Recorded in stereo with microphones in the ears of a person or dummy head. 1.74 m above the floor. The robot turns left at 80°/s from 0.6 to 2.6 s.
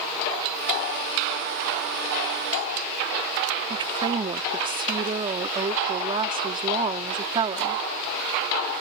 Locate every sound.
3.7 s a woman speaking: 25° right (ahead or behind)